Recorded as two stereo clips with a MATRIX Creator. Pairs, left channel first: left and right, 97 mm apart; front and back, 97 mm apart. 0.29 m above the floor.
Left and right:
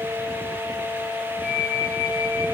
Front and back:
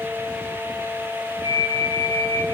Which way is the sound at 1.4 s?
170° right.